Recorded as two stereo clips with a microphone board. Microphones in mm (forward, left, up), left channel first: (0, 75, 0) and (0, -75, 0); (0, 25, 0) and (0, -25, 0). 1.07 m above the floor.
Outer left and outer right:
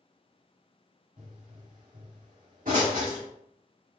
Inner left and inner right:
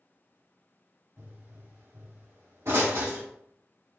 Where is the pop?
65° right (ahead or behind), 1.5 m.